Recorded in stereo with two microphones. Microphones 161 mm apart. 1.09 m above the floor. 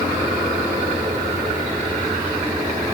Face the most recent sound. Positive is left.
No sound to turn to.